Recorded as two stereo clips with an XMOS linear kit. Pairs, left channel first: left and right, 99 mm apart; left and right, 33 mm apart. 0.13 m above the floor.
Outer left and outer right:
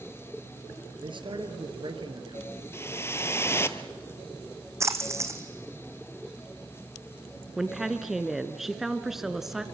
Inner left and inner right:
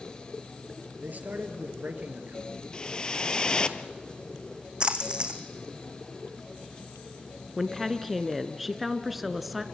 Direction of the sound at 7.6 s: 5° right (ahead or behind).